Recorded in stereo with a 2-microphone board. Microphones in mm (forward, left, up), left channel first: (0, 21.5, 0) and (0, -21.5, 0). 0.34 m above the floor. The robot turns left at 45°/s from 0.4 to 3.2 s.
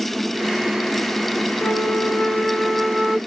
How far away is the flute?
About 0.9 m.